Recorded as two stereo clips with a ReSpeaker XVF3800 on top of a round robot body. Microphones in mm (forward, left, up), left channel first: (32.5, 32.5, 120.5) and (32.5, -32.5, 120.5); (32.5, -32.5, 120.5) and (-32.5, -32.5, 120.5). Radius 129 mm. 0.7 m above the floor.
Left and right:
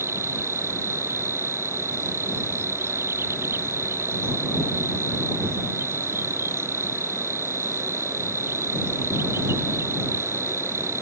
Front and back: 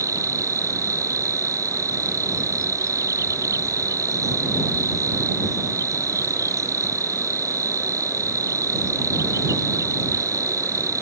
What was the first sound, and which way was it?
An insect, 145° right.